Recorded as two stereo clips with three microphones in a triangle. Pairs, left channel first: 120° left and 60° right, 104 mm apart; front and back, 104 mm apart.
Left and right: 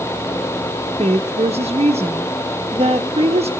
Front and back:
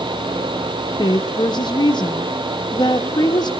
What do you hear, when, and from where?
1.0 s a woman speaking: 45° right, 1.4 m